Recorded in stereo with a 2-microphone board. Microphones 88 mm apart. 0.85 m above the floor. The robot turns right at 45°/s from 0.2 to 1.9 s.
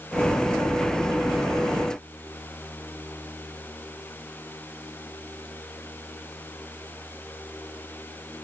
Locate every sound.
Only background noise.